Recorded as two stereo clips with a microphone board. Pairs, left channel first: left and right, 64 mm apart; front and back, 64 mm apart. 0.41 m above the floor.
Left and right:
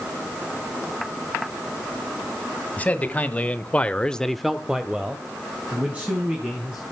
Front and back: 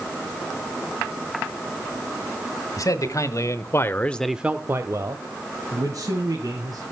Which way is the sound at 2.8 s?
25° left.